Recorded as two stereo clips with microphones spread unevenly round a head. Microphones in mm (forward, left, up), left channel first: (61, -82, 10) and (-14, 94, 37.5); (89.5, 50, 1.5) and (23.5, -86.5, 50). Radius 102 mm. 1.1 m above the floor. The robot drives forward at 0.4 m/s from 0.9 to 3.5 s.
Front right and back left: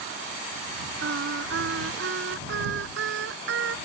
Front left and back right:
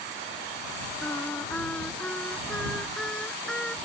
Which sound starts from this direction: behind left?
Singing, at 1.0 s.